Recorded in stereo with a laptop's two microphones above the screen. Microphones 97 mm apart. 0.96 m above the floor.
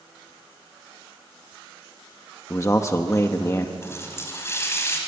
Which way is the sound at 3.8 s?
25° left (ahead or behind).